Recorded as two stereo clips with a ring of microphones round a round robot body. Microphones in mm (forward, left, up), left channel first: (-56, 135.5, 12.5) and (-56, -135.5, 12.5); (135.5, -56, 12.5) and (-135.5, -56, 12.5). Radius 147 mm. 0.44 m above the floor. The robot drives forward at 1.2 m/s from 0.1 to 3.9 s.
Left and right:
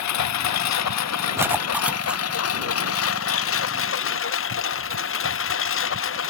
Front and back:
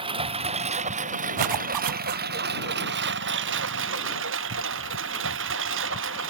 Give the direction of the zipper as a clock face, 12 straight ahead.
6 o'clock.